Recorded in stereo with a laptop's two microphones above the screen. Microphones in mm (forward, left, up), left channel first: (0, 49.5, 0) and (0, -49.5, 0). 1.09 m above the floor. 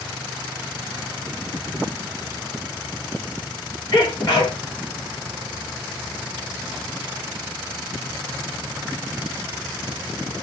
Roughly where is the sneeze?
Left.